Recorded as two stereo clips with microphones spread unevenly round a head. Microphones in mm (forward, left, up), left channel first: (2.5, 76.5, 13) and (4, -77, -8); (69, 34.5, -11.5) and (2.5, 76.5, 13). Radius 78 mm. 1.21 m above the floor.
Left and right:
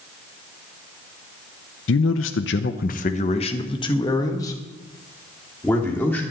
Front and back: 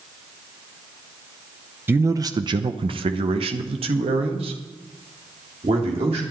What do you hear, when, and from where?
1.9 s a man speaking: 75° left, 0.8 m; by 6.2 s 170° left, 3 m